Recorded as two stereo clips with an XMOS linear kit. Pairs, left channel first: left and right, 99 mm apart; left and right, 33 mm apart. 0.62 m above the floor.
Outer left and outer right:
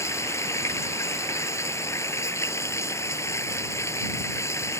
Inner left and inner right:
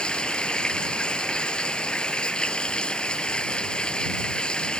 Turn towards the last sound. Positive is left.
turn(degrees=25)  # may be behind; listen again after turning